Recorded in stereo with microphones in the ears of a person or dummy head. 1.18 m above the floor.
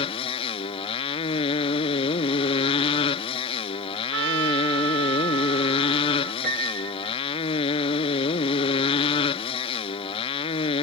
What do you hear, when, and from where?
0.0 s a motorcycle: 30° left (ahead or behind)
4.1 s a trumpet: 75° right (ahead or behind)
6.4 s a piano: 50° right (ahead or behind)